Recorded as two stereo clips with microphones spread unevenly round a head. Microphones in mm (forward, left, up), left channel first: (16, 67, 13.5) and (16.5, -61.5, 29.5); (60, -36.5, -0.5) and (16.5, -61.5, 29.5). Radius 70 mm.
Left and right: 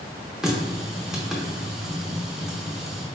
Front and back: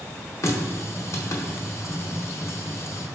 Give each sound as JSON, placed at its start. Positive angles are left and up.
{"t": 0.4, "sound": "a running tap", "azimuth_deg": -5, "distance_m": 0.7}